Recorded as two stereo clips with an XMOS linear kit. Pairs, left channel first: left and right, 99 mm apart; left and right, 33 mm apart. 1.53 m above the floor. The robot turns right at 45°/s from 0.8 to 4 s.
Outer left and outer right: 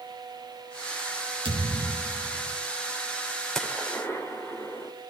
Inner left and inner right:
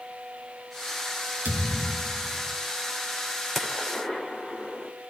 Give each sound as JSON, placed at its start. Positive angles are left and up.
{"t": 1.4, "sound": "a thud", "azimuth_deg": -70, "distance_m": 4.5}
{"t": 3.5, "sound": "a gunshot", "side_deg": 5, "distance_m": 3.0}